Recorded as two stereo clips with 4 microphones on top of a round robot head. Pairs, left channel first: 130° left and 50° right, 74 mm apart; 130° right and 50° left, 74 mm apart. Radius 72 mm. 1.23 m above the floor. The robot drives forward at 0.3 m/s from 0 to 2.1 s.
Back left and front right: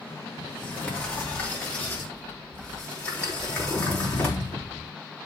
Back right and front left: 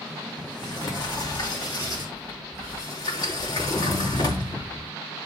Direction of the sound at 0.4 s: 160° right.